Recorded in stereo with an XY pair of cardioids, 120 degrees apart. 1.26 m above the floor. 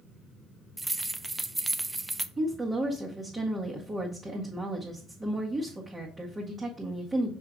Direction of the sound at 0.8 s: 15° right.